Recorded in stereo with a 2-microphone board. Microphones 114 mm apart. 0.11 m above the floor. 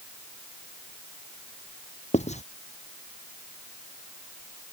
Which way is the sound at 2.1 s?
85° left.